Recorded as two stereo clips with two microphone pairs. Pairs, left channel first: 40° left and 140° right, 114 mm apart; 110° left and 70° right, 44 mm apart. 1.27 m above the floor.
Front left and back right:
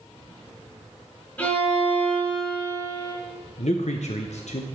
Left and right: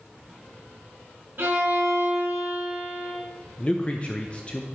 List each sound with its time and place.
1.4 s a violin: 30° right, 3 m
3.6 s a man speaking: 50° left, 0.7 m